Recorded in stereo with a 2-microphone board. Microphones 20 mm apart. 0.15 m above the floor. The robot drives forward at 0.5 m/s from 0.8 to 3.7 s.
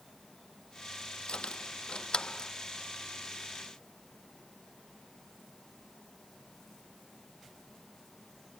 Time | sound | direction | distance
1.3 | keys jangling | 65° left (ahead or behind) | ?